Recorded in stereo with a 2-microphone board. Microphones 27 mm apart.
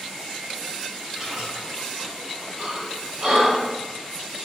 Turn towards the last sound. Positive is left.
turn(degrees=-30)  # may be behind; listen again after turning